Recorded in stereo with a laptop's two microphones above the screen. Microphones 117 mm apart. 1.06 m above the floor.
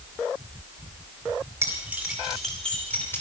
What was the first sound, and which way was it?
Keys jangling, 20° right (ahead or behind).